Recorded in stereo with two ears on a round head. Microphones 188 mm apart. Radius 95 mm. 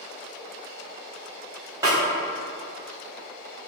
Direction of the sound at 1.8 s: 15° right (ahead or behind).